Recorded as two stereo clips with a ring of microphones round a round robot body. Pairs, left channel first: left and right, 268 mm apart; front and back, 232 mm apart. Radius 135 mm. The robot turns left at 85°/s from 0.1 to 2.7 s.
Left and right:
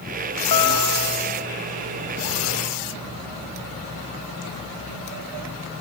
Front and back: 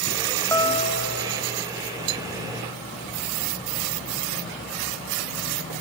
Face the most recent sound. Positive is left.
turn(degrees=-105)